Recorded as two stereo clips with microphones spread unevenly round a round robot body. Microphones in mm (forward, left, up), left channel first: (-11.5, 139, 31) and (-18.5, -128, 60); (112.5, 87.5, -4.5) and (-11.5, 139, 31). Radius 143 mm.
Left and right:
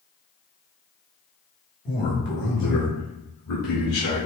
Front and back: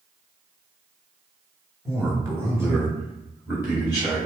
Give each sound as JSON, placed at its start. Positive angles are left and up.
{"t": 1.9, "sound": "a man speaking", "azimuth_deg": 80, "distance_m": 1.0}